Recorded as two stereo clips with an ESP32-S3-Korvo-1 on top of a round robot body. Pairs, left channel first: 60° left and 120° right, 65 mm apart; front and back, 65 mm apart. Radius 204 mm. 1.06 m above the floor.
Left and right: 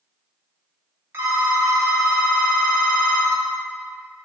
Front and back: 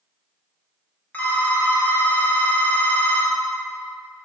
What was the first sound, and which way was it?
A phone ringing, 65° right.